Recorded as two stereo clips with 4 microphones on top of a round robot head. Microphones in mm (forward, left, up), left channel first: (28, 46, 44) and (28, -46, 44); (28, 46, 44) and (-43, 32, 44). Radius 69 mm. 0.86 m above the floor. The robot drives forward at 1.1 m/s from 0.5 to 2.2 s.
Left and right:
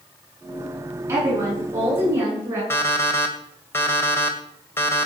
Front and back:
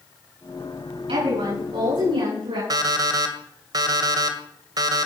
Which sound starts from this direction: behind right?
A woman speaking, at 1.1 s.